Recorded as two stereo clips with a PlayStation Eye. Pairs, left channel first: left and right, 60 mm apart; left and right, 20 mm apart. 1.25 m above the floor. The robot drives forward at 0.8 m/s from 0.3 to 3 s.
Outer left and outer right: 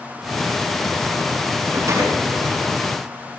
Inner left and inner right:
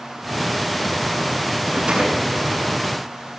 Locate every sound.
1.7 s a rattle: 60° right (ahead or behind), 7.5 m; by 2.7 s 55° right (ahead or behind), 8 m